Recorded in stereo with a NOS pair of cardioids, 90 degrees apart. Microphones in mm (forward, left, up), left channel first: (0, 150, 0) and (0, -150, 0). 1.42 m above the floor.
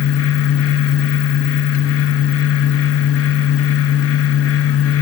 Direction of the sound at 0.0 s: 50° left.